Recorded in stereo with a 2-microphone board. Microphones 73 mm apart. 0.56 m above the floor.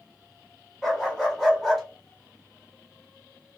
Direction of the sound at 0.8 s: 5° left (ahead or behind).